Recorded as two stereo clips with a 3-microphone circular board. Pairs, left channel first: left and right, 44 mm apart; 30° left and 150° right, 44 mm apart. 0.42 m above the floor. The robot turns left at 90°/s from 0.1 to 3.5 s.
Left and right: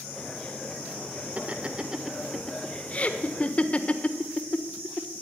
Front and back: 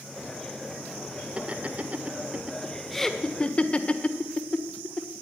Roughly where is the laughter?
Right.